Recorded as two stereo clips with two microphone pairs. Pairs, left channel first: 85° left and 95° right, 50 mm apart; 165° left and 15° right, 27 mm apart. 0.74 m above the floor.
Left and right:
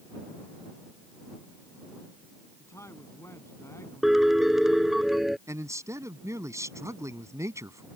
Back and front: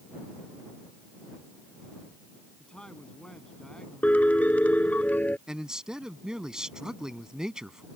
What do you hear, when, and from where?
2.6 s a man speaking: 105° left
4.0 s a piano: straight behind
5.5 s a man speaking: 80° right